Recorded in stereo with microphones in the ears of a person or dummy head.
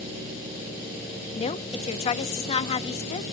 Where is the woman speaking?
35° left (ahead or behind), 0.8 m.